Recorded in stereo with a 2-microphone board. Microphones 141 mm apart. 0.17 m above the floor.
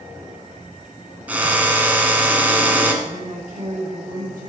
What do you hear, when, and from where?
1.3 s a drill: 10° right (ahead or behind), 1.3 m
3.0 s a woman speaking: 70° right (ahead or behind), 4 m